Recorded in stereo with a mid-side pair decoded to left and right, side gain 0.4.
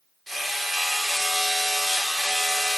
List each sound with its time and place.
0.3 s hammering: 10° right, 4.5 m